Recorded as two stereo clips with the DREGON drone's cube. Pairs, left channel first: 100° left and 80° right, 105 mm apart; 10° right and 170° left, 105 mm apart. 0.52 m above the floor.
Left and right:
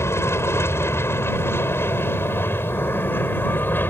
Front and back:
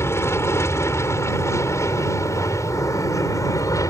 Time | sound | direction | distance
0.0 | an aircraft | 45° left | ?